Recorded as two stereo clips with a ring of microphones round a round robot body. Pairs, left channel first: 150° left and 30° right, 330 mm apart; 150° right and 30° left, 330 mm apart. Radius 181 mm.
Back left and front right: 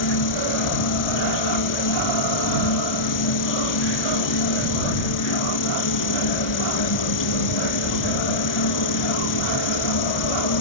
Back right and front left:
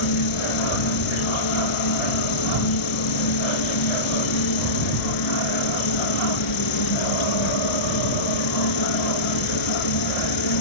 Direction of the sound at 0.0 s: 175° right.